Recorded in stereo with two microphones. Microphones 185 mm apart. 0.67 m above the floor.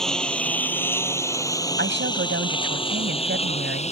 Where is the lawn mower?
5° left (ahead or behind); by 3.9 s 35° left (ahead or behind).